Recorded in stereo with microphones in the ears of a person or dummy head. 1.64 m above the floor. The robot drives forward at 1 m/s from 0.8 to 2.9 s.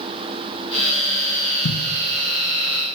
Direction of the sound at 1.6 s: 55° left (ahead or behind).